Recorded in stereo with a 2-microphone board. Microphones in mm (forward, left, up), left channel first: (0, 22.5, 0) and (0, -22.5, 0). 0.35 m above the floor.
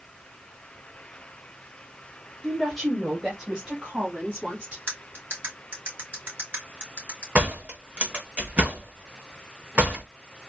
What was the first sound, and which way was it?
A woman speaking, 5° left (ahead or behind).